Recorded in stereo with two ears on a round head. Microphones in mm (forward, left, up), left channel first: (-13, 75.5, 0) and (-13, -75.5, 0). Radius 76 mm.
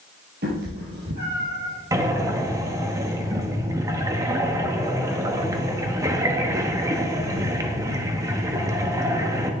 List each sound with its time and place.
0.4 s a cat meowing: 55° right (ahead or behind), 3.5 m; by 1.7 s 65° right (ahead or behind), 4 m
1.9 s breathing: 20° right (ahead or behind), 1.0 m